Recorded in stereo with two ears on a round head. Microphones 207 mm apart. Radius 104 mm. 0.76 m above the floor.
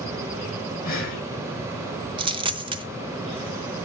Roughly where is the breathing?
Left.